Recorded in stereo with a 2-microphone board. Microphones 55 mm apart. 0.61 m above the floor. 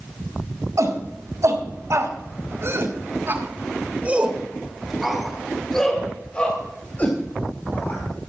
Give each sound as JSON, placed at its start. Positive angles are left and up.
{"t": 0.8, "sound": "a shout", "side_deg": -70, "distance_m": 5.0}